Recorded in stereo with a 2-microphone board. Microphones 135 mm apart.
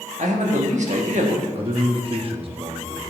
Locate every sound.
0.2 s a man speaking: 60° right (ahead or behind), 1.2 m
1.6 s a man speaking: 45° right (ahead or behind), 0.8 m